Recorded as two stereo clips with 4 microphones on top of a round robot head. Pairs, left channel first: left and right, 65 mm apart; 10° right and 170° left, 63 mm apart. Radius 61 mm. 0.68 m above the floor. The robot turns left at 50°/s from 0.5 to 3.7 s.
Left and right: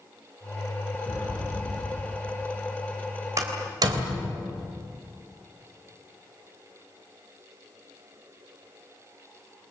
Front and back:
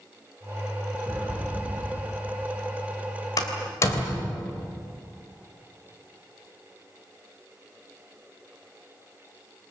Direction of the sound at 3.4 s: 45° right.